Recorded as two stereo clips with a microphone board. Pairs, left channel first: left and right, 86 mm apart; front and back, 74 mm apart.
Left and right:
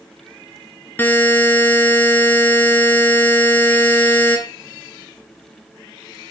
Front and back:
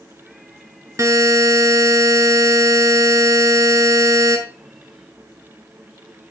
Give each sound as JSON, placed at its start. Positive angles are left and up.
{"t": 1.0, "sound": "a buzzer", "azimuth_deg": 150, "distance_m": 1.2}